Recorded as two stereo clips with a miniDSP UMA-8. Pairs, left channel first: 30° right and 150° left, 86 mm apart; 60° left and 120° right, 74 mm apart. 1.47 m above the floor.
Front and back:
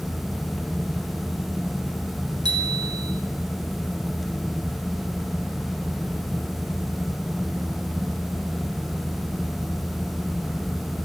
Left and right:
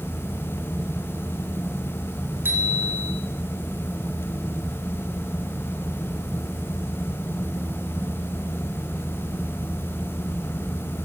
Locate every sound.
2.5 s a bicycle bell: straight behind, 4.5 m